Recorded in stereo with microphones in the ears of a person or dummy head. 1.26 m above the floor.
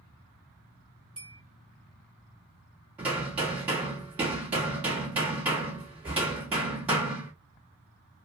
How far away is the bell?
About 1.9 m.